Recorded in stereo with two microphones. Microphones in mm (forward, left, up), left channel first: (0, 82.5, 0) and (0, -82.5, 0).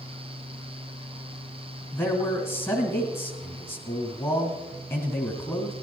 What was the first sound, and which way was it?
A man speaking, 15° left (ahead or behind).